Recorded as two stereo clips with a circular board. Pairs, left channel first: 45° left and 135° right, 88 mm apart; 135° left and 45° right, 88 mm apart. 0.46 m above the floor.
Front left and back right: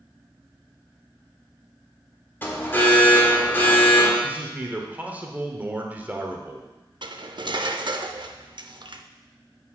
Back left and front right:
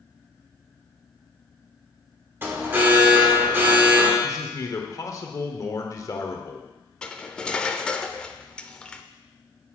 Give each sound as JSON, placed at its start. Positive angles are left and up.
{"t": 2.4, "sound": "an alarm", "azimuth_deg": 0, "distance_m": 1.5}
{"t": 4.2, "sound": "a man speaking", "azimuth_deg": 160, "distance_m": 1.1}
{"t": 7.0, "sound": "cutlery clinking", "azimuth_deg": -145, "distance_m": 0.5}